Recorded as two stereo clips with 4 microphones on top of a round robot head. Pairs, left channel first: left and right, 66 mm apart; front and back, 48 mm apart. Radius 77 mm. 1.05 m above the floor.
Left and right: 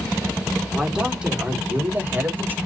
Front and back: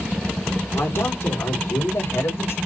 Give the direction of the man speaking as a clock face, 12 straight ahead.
12 o'clock.